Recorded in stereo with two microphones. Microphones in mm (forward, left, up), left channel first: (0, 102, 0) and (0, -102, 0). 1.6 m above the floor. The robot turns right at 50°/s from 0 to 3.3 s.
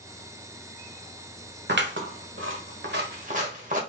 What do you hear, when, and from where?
1.7 s scissors: 60° right (ahead or behind), 1.4 m; by 3.8 s 40° right (ahead or behind), 1.4 m